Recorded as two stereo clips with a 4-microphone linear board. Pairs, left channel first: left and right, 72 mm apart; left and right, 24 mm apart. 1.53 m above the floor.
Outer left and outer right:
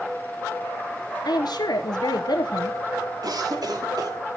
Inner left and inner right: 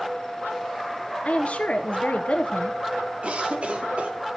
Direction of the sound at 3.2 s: 65° right (ahead or behind).